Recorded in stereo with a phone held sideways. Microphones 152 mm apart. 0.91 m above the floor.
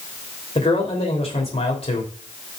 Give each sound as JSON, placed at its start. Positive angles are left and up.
{"t": 0.6, "sound": "a man speaking", "side_deg": 40, "distance_m": 3.0}